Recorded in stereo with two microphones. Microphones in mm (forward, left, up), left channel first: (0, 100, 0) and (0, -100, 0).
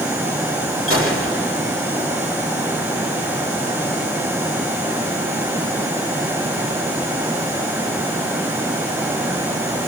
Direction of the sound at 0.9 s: 85° left.